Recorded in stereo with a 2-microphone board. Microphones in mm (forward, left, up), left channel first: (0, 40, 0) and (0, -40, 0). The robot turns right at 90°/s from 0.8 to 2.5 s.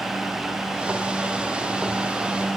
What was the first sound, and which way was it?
Only background noise.